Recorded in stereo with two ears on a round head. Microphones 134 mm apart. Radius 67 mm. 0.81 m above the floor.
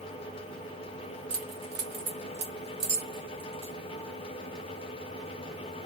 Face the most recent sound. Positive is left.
turn(degrees=-40)  # may be behind; listen again after turning